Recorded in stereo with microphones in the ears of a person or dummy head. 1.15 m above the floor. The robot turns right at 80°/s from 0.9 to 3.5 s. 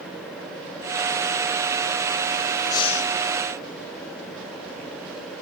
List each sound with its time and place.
2.7 s breathing: 20° left, 0.8 m; by 3.1 s 55° left, 0.8 m